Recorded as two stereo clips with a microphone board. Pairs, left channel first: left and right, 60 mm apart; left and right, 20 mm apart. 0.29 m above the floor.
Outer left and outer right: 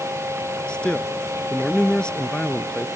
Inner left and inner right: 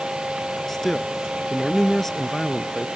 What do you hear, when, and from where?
0.7 s a man speaking: 15° left (ahead or behind)